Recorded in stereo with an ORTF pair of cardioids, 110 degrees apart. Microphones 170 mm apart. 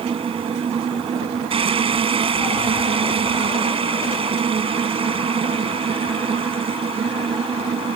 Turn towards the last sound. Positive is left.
turn(degrees=-35)